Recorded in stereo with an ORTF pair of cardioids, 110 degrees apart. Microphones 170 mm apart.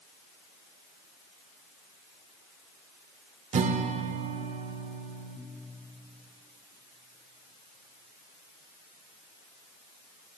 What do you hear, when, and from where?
3.5 s a guitar: 45° right, 0.9 m